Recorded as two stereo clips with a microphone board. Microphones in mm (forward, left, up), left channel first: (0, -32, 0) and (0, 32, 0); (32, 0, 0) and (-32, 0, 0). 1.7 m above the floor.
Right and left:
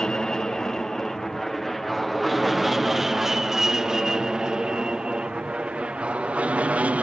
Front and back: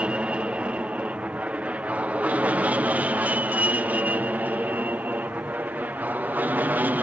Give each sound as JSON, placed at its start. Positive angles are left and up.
{"t": 0.0, "sound": "an aircraft", "azimuth_deg": -150}